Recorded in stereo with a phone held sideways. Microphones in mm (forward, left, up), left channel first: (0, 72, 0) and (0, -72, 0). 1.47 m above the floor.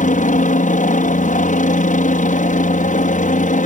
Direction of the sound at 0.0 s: 65° left (ahead or behind).